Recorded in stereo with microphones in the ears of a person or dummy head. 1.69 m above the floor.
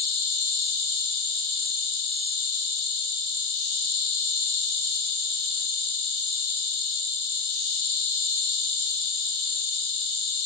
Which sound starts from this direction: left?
An insect, at 0.0 s.